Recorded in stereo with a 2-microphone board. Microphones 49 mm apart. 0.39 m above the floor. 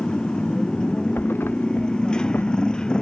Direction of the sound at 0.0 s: 20° left (ahead or behind).